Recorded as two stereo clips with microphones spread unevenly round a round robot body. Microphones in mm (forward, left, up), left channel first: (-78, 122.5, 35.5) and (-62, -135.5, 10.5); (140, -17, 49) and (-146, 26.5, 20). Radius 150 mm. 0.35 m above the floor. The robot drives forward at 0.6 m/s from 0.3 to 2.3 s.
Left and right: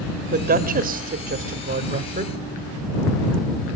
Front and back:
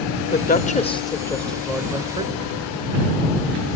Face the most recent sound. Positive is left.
turn(degrees=-130)